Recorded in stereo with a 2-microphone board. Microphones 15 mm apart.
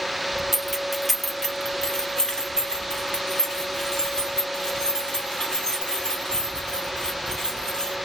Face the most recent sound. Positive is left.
turn(degrees=60)  # may be behind; listen again after turning